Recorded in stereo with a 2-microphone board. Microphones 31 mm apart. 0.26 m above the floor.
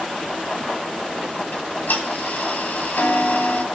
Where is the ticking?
75° left (ahead or behind), 6 m.